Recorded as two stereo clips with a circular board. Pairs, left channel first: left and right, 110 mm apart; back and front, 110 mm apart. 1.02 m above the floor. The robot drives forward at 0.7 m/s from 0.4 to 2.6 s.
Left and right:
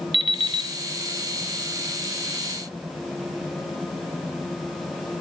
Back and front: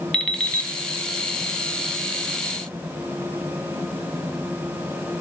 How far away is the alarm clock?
About 0.6 m.